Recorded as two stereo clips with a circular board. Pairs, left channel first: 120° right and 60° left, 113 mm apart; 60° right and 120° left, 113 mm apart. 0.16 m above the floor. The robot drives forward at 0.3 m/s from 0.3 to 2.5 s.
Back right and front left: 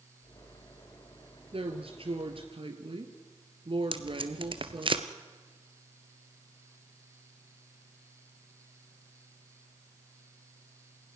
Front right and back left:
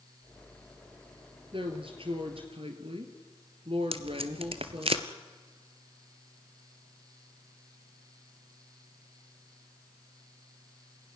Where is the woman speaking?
85° left, 2.5 m; by 4.9 s 95° left, 2.5 m.